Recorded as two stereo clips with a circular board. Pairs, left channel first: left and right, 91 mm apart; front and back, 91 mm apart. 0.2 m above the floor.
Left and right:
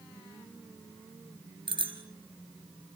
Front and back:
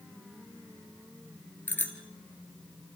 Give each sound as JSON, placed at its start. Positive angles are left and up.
{"t": 1.7, "sound": "a bicycle bell", "azimuth_deg": -70, "distance_m": 3.0}